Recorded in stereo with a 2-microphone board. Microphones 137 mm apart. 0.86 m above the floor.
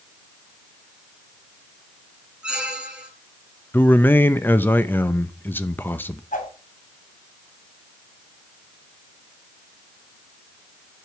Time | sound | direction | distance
2.4 | a squeak | 10° right (ahead or behind) | 3 m
3.7 | a man speaking | 15° left (ahead or behind) | 0.6 m
6.3 | a whoosh | 75° left (ahead or behind) | 3.5 m